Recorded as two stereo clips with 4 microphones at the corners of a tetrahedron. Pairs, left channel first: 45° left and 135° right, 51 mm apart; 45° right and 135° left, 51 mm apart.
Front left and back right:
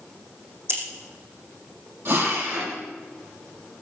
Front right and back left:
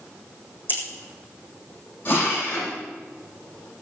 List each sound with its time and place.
0.7 s scissors: 95° right, 4 m
2.0 s a drill: 100° right, 8.5 m